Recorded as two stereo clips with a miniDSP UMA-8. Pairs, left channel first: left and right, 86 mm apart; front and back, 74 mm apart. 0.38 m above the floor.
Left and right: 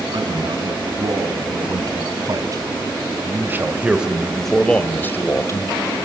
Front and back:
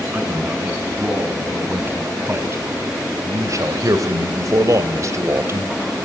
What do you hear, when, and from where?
0.1 s a man speaking: 115° right, 4 m; by 5.7 s 130° left, 1.9 m